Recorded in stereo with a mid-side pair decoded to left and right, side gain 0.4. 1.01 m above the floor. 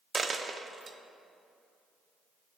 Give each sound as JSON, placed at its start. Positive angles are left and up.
{"t": 0.1, "sound": "a dropped coin", "azimuth_deg": -40, "distance_m": 0.9}